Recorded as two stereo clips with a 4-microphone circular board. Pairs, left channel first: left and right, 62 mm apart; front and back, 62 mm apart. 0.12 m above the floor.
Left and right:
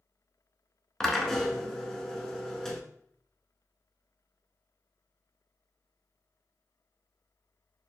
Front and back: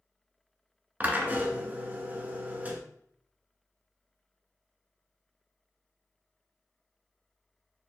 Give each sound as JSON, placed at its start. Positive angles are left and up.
{"t": 1.0, "sound": "a drill", "azimuth_deg": 165, "distance_m": 0.7}